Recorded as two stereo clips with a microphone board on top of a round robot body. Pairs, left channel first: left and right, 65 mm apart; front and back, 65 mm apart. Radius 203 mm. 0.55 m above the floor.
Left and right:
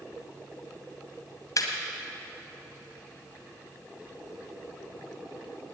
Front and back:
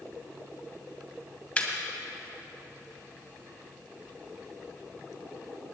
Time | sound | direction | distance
1.6 | laughter | 70° left | 2 m